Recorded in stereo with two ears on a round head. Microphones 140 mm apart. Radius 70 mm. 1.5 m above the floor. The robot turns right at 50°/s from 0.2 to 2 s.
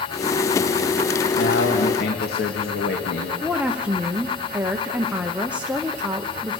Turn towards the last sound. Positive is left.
turn(degrees=-10)  # may be behind; listen again after turning